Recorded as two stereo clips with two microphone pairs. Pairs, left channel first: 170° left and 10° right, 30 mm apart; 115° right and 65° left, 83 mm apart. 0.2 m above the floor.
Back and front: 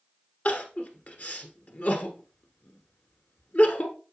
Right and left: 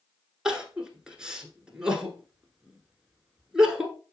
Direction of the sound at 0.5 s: 145° left.